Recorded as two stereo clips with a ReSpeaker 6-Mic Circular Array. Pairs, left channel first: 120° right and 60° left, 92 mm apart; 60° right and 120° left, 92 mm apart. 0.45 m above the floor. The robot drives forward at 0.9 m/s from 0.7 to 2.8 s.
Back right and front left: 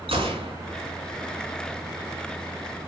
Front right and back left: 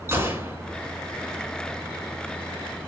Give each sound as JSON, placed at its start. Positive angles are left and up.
{"t": 0.1, "sound": "a gunshot", "azimuth_deg": 55, "distance_m": 4.0}